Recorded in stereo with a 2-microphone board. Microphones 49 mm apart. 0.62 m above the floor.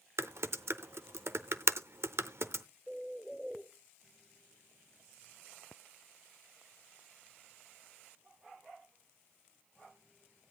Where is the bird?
Centre (ahead or behind), 2.0 m.